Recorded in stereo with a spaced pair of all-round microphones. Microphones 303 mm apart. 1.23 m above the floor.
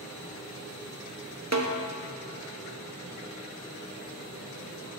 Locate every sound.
1.5 s a snare drum: 55° right (ahead or behind), 0.9 m